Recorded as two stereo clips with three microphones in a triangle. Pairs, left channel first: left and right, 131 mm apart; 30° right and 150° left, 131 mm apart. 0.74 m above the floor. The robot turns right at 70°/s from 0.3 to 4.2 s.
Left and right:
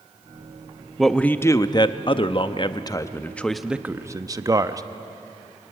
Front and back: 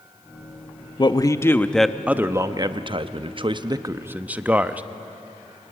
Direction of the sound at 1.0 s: Straight ahead.